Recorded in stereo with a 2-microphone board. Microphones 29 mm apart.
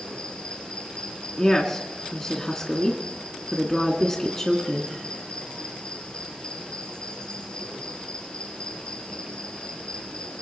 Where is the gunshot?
No gunshot in this recording.